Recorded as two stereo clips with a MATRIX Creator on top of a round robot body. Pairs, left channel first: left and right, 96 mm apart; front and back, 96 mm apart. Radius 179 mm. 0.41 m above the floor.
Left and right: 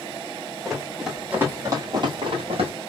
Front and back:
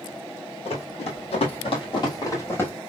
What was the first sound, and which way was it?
Running footsteps, 5° left.